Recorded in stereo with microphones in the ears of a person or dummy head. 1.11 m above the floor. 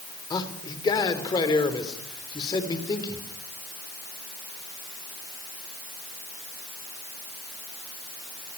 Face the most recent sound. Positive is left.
turn(degrees=20)  # may be behind; listen again after turning